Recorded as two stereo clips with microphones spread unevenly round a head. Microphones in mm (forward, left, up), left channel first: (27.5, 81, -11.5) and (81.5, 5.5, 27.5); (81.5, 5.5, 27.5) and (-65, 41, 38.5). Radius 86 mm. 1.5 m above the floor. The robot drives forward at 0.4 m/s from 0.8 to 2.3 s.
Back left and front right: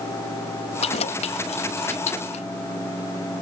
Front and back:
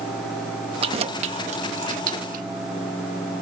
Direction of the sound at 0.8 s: 115° left.